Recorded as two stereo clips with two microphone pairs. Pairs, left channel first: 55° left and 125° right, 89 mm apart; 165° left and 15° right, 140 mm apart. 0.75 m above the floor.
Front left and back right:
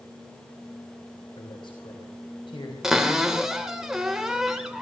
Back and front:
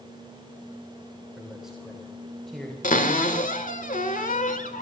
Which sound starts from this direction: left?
A man speaking, at 1.4 s.